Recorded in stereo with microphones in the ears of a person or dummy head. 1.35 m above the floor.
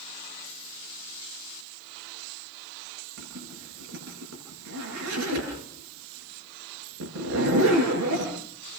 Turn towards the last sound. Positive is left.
turn(degrees=-75)  # may be behind; listen again after turning